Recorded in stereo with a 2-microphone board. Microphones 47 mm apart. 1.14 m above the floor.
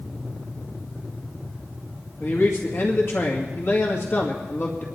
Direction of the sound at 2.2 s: 55° left (ahead or behind).